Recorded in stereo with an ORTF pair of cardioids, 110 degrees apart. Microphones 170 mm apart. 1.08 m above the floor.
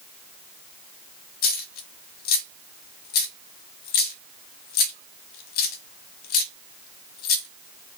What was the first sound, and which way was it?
A dropped coin, 70° left.